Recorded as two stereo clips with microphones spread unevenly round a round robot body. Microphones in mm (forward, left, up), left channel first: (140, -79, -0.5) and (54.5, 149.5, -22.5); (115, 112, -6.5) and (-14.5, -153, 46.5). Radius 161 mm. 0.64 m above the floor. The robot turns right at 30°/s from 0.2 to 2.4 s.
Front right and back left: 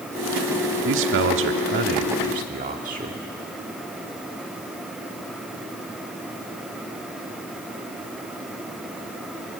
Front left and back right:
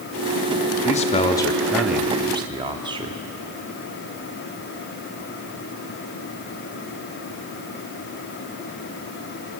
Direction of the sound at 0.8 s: 115° left.